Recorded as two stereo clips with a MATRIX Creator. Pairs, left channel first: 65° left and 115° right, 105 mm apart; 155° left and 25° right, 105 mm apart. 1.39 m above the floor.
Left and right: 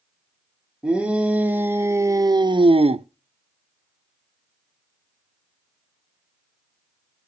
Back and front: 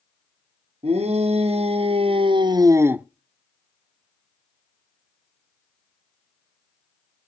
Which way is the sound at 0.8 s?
30° right.